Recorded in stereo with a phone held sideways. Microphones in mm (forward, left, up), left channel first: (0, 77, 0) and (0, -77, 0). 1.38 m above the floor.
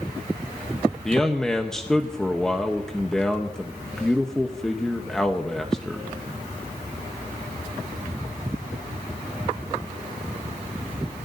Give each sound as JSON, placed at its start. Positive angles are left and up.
{"t": 1.1, "sound": "a man speaking", "side_deg": 5, "distance_m": 0.9}